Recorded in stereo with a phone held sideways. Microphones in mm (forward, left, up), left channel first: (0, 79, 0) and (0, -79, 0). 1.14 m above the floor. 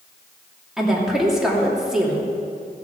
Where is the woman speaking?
5° right (ahead or behind), 2.5 m.